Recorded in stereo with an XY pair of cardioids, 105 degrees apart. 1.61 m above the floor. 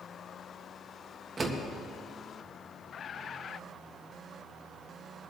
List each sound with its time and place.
1.4 s a door slam: 30° right, 1.8 m